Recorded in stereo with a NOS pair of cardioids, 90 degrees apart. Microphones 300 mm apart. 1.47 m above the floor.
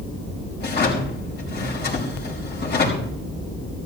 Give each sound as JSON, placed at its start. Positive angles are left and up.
{"t": 0.6, "sound": "a drawer", "azimuth_deg": 35, "distance_m": 5.5}